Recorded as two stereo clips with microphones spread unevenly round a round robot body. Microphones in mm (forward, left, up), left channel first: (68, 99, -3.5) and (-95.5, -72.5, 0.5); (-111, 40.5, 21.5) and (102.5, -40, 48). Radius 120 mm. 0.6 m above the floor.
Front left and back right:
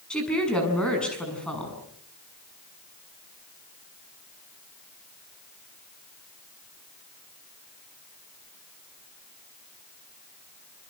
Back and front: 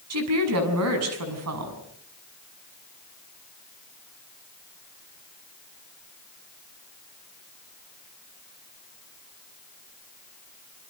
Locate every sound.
0.1 s a woman speaking: 40° right, 7 m